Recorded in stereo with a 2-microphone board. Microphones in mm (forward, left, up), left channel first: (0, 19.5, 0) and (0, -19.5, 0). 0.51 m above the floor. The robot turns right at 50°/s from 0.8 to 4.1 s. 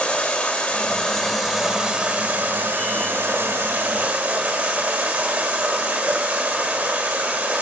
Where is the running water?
150° left, 2 m; by 7.6 s 45° right, 2 m.